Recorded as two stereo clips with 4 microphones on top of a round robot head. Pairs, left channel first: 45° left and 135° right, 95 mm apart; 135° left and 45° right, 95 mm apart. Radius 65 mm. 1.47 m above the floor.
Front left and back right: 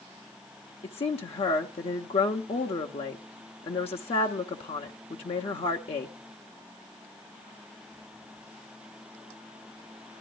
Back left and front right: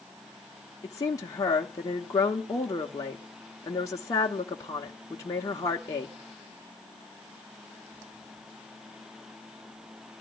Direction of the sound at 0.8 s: 75° left.